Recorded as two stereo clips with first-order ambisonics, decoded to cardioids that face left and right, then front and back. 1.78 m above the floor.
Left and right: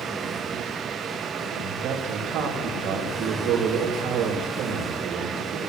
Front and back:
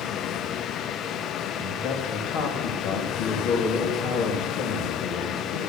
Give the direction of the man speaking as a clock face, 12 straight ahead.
1 o'clock.